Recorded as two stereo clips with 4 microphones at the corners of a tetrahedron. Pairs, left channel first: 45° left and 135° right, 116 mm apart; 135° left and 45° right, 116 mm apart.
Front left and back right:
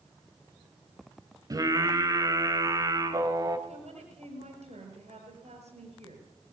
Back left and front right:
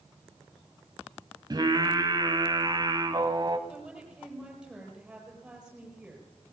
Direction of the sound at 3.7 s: 130° right.